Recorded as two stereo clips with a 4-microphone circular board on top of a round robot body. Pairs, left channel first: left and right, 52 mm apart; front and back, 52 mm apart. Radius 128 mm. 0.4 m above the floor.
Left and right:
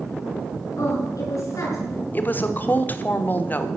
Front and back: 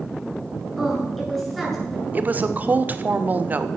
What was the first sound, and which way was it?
A woman speaking, 90° left.